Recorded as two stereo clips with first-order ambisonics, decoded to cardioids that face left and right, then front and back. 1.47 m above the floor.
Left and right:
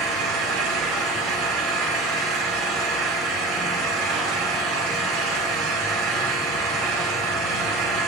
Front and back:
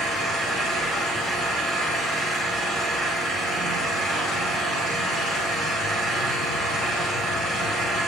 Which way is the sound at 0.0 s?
120° right.